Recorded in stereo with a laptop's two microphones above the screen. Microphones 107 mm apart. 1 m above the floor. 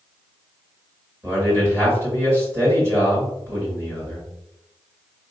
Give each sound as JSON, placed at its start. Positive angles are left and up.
{"t": 1.2, "sound": "a man speaking", "side_deg": -25, "distance_m": 2.0}